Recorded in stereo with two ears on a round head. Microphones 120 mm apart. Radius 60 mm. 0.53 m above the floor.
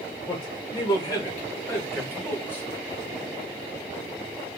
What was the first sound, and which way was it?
A man speaking, 40° left (ahead or behind).